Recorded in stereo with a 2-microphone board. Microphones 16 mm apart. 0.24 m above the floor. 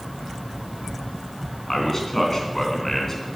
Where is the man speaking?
25° left (ahead or behind), 3 m.